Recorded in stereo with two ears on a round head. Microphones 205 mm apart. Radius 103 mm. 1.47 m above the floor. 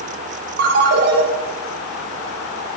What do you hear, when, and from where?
0.6 s a ringtone: 45° right (ahead or behind), 0.8 m